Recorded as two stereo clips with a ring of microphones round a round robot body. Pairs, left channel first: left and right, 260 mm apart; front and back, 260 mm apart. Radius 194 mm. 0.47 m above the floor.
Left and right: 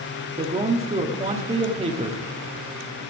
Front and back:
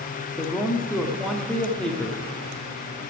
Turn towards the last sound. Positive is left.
turn(degrees=-80)